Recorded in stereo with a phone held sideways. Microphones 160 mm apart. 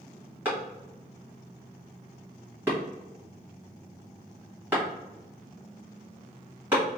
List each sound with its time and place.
0.5 s a clap: 10° right (ahead or behind), 1.7 m